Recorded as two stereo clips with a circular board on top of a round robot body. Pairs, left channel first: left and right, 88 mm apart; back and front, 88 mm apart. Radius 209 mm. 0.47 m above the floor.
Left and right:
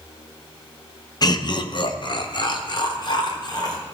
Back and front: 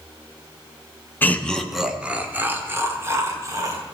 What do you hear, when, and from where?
1.2 s laughter: 115° left, 1.2 m; by 3.8 s 50° left, 3 m